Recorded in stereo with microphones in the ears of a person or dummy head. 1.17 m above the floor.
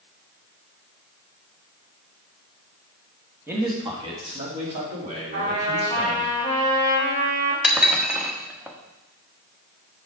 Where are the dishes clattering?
5° right (ahead or behind), 1.0 m.